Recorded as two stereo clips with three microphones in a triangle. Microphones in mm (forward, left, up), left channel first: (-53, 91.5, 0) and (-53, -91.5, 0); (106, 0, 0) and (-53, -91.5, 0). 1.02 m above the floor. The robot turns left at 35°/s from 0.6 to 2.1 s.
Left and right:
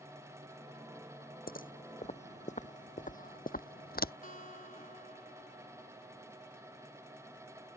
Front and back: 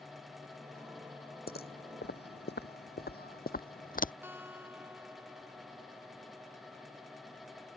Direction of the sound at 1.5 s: 60° left.